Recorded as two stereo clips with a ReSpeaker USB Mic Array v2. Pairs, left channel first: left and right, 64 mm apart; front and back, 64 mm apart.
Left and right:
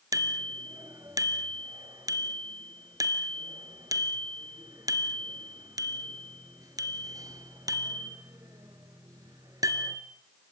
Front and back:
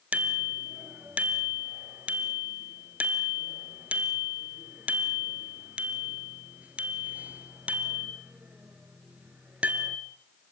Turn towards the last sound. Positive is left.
turn(degrees=-110)